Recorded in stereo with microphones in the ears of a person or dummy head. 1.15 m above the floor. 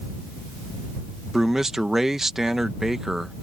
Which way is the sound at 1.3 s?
5° right (ahead or behind).